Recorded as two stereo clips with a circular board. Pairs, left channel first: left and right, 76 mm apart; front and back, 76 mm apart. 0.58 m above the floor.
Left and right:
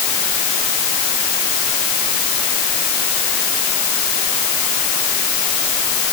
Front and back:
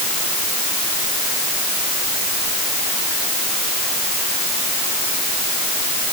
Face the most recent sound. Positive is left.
No sound to turn to.